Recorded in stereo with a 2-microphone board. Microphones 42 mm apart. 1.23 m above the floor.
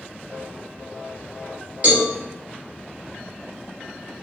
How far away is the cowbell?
About 1.5 m.